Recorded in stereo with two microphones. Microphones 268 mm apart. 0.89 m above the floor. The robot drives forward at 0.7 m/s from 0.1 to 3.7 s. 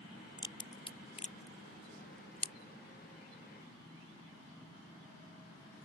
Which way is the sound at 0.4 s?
15° left (ahead or behind).